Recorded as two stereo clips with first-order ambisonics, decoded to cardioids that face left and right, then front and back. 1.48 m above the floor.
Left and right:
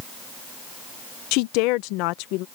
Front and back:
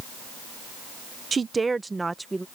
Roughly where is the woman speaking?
Left.